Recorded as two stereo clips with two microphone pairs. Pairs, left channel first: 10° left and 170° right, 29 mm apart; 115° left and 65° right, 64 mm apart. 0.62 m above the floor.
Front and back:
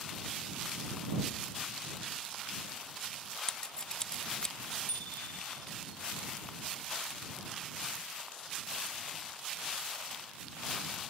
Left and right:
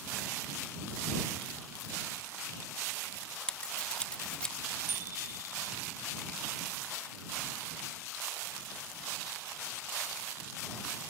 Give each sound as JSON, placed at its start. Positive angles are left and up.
{"t": 3.5, "sound": "scissors", "azimuth_deg": 50}
{"t": 4.9, "sound": "a bicycle bell", "azimuth_deg": -10}